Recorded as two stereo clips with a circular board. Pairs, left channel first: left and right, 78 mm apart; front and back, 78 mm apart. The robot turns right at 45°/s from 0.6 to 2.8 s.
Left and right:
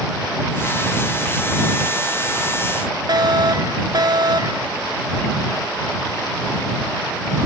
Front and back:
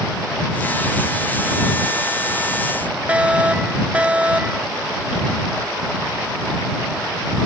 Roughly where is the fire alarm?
Right.